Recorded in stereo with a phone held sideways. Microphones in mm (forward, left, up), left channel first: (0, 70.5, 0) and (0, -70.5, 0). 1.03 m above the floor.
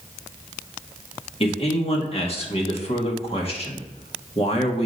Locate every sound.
1.4 s a man speaking: 40° left (ahead or behind), 1.6 m